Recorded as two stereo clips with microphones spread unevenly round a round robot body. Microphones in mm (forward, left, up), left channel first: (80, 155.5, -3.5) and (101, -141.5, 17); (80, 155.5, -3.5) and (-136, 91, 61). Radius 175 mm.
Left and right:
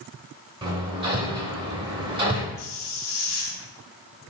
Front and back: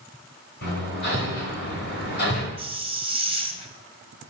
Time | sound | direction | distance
0.6 | hammering | 10° right | 2 m
2.6 | a hiss | 125° left | 1.3 m